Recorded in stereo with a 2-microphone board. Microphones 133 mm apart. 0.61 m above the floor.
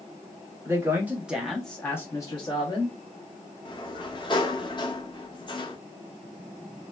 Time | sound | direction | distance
0.7 | a woman speaking | 20° right (ahead or behind) | 0.9 m
3.6 | a sliding door | 35° left (ahead or behind) | 0.6 m